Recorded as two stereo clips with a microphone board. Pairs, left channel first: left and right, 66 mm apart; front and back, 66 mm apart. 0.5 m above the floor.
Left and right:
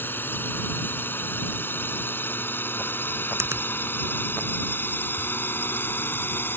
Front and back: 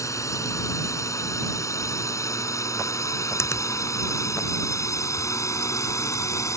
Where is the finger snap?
45° right.